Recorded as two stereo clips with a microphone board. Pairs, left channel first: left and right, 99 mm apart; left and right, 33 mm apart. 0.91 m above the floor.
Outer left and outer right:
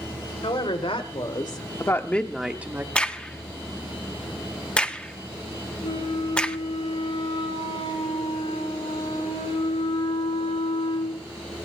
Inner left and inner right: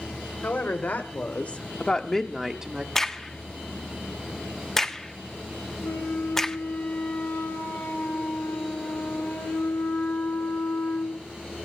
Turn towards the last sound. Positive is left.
turn(degrees=85)